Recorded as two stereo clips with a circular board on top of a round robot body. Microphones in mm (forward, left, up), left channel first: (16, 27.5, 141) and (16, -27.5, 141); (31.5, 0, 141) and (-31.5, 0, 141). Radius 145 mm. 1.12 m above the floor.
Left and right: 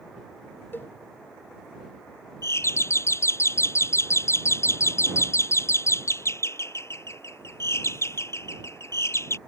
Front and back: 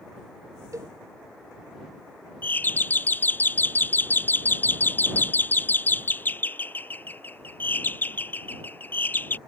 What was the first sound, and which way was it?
A cowbell, 145° left.